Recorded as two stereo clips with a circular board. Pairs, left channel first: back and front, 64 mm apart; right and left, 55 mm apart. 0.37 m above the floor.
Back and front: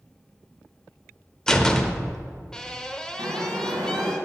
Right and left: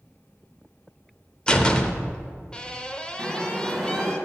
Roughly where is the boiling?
Ahead.